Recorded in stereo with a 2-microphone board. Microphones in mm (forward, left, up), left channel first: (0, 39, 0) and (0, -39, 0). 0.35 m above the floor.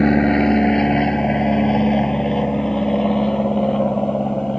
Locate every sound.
0.0 s an aircraft: 5° left (ahead or behind)